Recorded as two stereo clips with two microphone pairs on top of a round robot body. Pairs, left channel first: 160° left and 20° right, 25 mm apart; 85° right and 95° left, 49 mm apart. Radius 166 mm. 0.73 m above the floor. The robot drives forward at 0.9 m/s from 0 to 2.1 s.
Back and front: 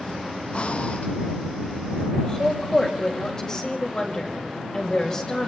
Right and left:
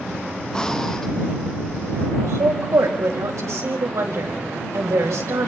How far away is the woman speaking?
About 4.5 m.